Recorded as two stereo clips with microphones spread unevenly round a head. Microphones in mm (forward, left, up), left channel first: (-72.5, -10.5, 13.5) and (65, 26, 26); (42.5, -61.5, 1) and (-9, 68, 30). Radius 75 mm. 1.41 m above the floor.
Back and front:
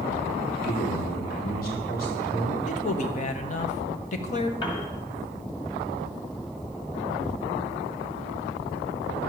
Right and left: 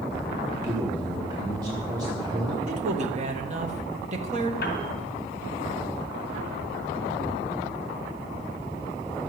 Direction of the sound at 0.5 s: 175° left.